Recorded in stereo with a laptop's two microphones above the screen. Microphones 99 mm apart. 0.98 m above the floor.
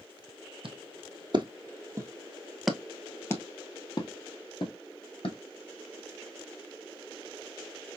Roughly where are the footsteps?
Right.